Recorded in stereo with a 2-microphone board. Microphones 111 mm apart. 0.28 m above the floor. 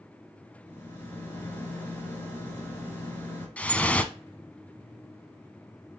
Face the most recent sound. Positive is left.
turn(degrees=15)  # may be behind; listen again after turning